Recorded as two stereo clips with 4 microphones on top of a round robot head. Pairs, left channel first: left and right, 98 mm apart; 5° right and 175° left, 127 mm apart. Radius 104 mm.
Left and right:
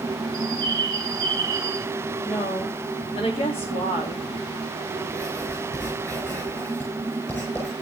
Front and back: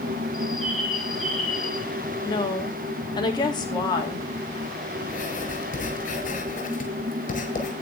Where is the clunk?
No clunk in this recording.